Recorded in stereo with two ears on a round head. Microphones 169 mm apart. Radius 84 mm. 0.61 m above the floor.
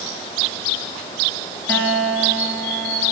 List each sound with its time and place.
1.7 s a guitar: 10° left (ahead or behind), 2 m